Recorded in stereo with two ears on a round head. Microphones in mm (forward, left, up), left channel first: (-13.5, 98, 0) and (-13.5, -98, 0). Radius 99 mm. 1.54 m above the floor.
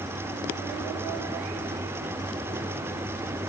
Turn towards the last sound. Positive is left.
No sound to turn to.